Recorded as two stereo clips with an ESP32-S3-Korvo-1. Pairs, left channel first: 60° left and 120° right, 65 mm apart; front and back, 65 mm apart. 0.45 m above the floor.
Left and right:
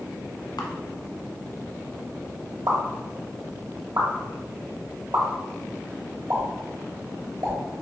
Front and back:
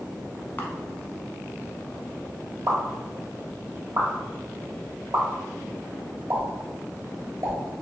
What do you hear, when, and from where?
0.6 s a camera shutter: 65° left, 0.7 m
2.7 s a pop: 140° right, 1.1 m